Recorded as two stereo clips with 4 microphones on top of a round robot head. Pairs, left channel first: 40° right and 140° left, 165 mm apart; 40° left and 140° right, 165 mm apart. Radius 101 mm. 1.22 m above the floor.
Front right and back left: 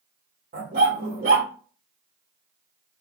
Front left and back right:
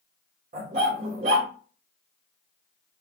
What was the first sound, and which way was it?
A dog barking, straight behind.